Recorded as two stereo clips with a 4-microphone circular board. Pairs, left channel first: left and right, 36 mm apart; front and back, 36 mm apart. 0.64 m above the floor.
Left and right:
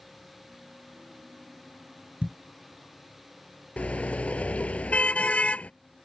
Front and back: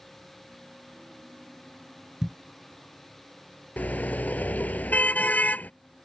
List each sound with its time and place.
2.2 s a thud: 115° right
3.8 s a car horn: 40° left